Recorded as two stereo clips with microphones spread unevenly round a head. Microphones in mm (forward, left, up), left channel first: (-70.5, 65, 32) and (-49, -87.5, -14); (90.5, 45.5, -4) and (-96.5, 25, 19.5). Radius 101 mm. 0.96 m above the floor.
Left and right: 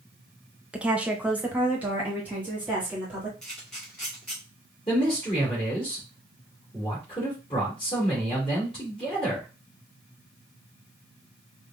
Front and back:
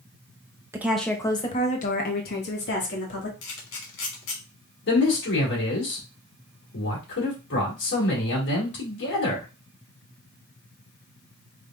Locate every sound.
0.7 s a woman speaking: 100° right, 0.7 m; by 3.3 s 5° right, 1.9 m
3.4 s a camera shutter: 20° left, 1.9 m
4.9 s a man speaking: 30° left, 2.5 m